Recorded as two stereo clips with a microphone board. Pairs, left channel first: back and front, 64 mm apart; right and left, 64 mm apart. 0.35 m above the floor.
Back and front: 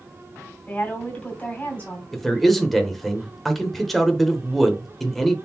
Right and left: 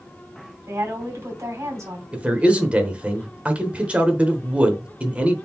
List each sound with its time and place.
0.7 s a woman speaking: 115° left, 2.5 m
2.1 s a man speaking: 95° left, 0.8 m